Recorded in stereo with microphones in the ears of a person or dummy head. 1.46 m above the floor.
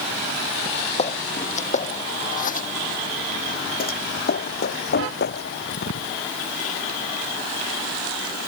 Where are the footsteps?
40° left (ahead or behind); by 6.2 s 70° left (ahead or behind).